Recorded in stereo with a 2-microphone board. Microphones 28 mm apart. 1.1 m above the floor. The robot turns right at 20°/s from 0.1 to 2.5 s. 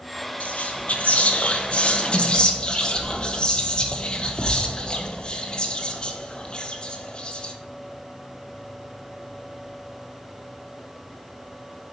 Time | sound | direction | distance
0.4 | whispering | 105° left | 1.1 m